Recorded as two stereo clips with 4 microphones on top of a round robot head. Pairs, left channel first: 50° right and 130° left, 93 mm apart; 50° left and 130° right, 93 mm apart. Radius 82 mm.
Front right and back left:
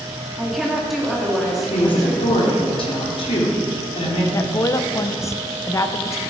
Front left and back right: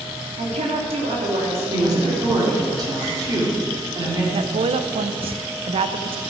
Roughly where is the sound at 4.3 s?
Right.